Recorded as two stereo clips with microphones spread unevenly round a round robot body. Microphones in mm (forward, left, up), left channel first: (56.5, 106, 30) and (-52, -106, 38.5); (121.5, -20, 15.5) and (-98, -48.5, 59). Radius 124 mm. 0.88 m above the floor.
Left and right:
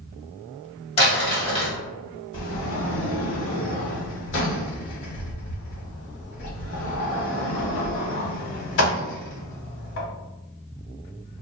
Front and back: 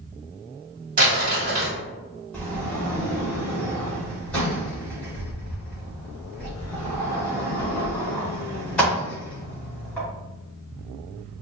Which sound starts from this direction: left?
A sliding door, at 2.3 s.